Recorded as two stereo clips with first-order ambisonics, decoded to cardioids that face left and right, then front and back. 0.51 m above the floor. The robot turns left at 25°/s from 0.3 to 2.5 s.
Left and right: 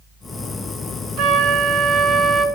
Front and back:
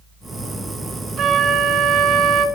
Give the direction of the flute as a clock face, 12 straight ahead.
4 o'clock.